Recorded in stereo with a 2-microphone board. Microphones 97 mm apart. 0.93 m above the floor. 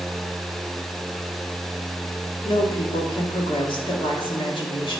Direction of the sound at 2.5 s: 60° left (ahead or behind).